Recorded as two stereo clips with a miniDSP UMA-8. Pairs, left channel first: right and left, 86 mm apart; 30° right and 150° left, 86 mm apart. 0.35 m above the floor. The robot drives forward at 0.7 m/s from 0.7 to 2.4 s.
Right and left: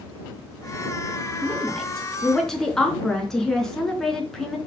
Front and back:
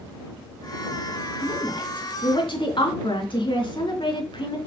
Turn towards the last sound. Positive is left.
turn(degrees=-5)